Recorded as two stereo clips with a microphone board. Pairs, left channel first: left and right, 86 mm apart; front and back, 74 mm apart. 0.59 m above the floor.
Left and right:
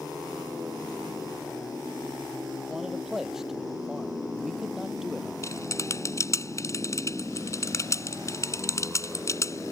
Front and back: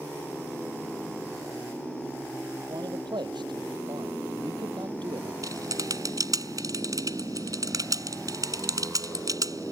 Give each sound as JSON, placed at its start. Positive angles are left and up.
{"t": 2.7, "sound": "a man speaking", "azimuth_deg": -175}
{"t": 5.4, "sound": "typing on a keyboard", "azimuth_deg": 145}